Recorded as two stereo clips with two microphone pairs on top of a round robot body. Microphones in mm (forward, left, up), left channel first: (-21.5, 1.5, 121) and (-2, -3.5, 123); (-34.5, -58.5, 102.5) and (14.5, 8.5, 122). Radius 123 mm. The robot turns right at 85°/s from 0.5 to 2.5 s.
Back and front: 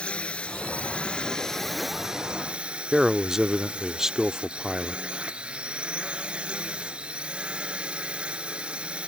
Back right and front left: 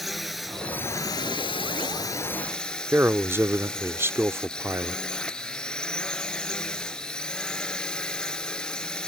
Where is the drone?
145° left; by 9.1 s 45° right.